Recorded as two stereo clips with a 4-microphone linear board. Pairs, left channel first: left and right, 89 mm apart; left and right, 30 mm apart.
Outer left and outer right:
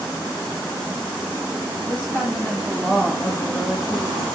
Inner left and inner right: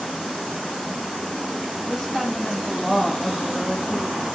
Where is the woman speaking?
25° left (ahead or behind), 1.7 m; by 4.2 s 5° right (ahead or behind), 1.5 m.